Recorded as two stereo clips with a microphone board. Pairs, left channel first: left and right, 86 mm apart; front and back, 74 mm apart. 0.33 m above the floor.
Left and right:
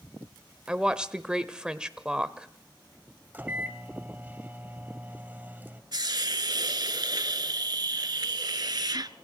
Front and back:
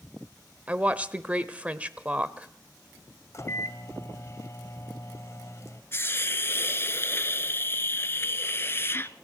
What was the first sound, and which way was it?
A woman speaking, 150° right.